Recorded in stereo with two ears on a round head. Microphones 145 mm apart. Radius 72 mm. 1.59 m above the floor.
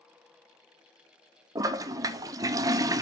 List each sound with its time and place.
1.6 s a toilet flushing: 20° right (ahead or behind), 0.6 m